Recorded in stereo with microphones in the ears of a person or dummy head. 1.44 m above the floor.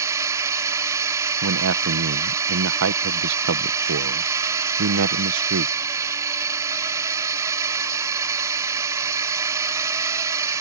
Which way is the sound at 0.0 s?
15° right (ahead or behind).